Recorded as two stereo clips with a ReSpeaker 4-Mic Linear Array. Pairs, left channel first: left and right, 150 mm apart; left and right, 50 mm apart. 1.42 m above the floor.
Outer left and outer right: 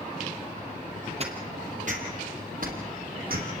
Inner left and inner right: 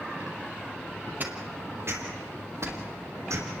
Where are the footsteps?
45° right (ahead or behind), 3 m; by 3.5 s 75° right (ahead or behind), 4.5 m.